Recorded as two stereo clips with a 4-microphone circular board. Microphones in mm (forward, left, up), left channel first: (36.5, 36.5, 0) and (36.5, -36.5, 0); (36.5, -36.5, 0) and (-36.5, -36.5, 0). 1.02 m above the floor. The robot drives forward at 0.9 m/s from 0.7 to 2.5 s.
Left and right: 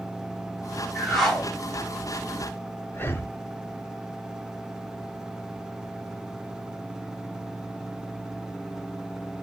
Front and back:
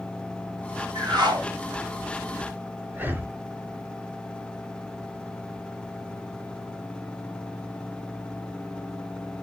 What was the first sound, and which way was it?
A whoosh, straight behind.